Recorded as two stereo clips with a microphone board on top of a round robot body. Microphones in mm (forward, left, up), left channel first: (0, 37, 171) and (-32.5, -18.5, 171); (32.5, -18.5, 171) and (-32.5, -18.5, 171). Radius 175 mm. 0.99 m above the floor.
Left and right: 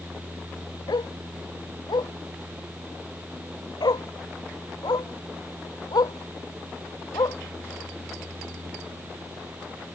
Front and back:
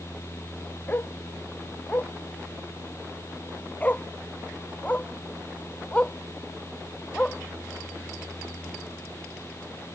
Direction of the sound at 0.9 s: 60° left.